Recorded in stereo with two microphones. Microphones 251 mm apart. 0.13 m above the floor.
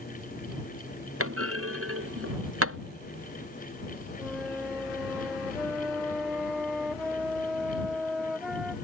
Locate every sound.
1.2 s a clunk: 60° right (ahead or behind)
4.2 s a flute: centre (ahead or behind)